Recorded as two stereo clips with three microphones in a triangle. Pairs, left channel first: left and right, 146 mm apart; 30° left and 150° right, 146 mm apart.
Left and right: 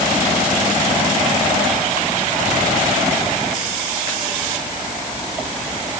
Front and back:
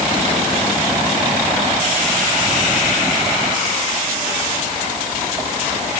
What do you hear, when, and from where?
Only background noise.